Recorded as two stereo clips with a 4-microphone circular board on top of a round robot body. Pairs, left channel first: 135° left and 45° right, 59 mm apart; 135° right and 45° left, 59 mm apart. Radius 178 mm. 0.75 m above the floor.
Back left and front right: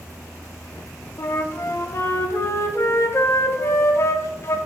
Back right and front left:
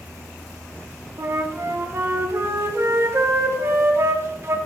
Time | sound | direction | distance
1.2 | a flute | 90° left | 1.2 m